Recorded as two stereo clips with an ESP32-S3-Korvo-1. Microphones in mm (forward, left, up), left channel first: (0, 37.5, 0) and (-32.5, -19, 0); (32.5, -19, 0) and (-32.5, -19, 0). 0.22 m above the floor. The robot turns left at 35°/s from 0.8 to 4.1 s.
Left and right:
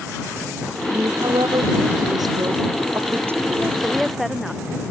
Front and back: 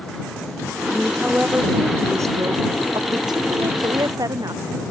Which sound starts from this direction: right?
A woman speaking, at 0.9 s.